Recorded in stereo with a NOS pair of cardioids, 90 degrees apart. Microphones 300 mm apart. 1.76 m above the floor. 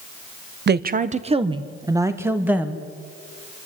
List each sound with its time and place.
0.7 s a woman speaking: 35° right, 1.0 m; by 2.9 s 5° right, 2.5 m